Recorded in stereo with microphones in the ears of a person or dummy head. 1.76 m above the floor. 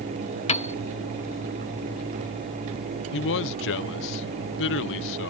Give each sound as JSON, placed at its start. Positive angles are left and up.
{"t": 0.5, "sound": "a piano", "side_deg": 35}
{"t": 3.1, "sound": "a man speaking", "side_deg": 65}